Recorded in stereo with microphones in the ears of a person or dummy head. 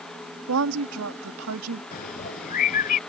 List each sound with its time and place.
0.5 s a woman speaking: 85° right
1.9 s a bird: 40° left (ahead or behind)